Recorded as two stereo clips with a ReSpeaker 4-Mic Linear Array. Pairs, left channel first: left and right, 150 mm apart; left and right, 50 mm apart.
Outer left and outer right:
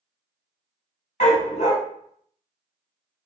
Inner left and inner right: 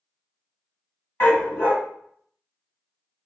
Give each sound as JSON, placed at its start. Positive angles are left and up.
{"t": 1.2, "sound": "a dog barking", "side_deg": 50, "distance_m": 1.4}